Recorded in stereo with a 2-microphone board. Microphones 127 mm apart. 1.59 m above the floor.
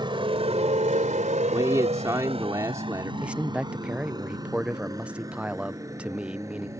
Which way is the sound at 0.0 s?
40° right (ahead or behind).